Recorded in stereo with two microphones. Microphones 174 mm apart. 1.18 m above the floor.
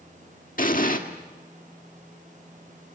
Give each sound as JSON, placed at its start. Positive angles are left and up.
{"t": 0.6, "sound": "an explosion", "side_deg": 55, "distance_m": 1.5}